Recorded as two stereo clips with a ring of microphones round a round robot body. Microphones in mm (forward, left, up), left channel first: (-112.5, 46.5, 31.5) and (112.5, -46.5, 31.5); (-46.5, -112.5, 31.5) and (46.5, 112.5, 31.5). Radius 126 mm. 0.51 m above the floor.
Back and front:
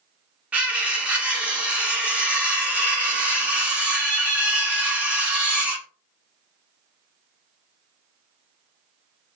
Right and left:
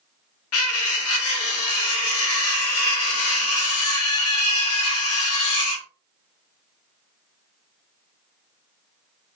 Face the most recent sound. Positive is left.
turn(degrees=-105)